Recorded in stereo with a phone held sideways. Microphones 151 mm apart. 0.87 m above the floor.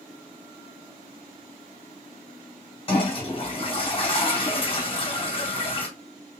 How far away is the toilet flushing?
About 3 m.